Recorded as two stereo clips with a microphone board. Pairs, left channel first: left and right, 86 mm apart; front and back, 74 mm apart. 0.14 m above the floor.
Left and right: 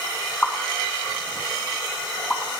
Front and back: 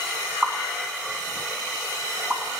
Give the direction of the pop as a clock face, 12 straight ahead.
8 o'clock.